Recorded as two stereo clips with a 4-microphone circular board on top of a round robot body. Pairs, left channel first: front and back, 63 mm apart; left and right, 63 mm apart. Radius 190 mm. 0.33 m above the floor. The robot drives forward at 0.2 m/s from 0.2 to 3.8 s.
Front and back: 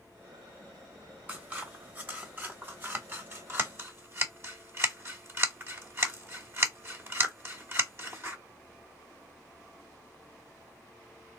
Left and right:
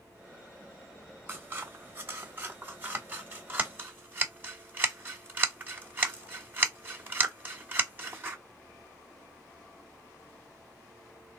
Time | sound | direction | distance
1.3 | scissors | 125° right | 1.8 m